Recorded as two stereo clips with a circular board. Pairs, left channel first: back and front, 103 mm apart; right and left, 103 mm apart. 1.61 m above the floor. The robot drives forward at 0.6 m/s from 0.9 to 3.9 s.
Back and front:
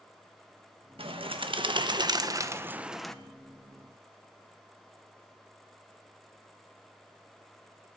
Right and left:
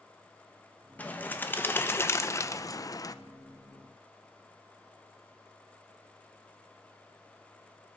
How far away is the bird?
About 1.4 m.